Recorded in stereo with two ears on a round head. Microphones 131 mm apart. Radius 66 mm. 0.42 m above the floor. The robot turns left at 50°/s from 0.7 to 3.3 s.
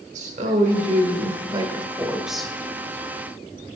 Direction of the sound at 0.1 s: 95° right.